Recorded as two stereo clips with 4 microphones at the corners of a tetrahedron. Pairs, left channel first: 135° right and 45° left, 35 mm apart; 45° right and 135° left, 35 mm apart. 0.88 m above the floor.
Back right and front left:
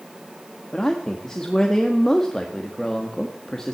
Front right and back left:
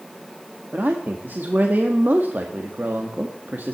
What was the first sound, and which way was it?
A man speaking, 150° left.